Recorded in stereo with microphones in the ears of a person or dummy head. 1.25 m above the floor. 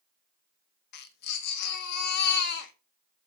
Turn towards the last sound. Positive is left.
turn(degrees=55)  # may be behind; listen again after turning